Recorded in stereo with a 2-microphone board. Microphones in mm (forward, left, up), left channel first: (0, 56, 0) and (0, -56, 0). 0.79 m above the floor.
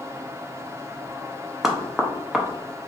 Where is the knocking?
Centre (ahead or behind), 0.5 m.